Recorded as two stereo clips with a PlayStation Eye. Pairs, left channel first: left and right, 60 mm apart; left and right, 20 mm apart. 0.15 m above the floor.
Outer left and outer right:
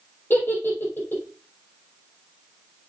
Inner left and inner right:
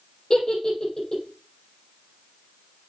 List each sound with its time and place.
0.3 s a giggle: 35° left (ahead or behind), 5 m